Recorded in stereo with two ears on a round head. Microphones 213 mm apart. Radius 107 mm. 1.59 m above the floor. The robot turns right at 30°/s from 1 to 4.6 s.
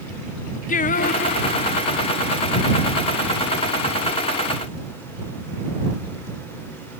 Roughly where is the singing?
Left.